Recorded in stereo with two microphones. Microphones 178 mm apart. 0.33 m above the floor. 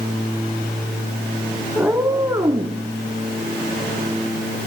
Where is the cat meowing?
5° right (ahead or behind), 1.1 m; by 2.8 s 25° right (ahead or behind), 1.5 m.